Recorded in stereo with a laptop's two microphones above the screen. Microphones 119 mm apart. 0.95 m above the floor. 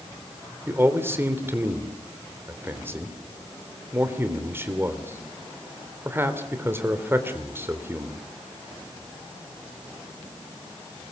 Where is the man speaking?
20° right (ahead or behind), 3.5 m.